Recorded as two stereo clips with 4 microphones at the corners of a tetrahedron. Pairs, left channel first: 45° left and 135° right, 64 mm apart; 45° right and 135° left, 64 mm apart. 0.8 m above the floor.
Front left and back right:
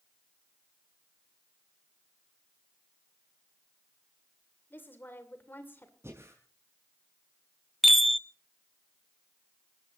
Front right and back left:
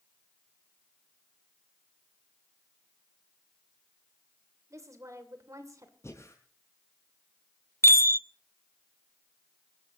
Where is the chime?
45° right, 0.6 m.